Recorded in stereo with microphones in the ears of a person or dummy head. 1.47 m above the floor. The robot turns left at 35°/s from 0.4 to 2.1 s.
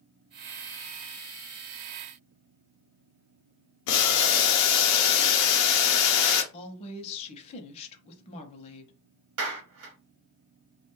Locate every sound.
3.9 s boiling: 70° left (ahead or behind), 0.6 m
6.5 s a woman speaking: 30° left (ahead or behind), 0.7 m
9.4 s a clap: 75° right (ahead or behind), 1.0 m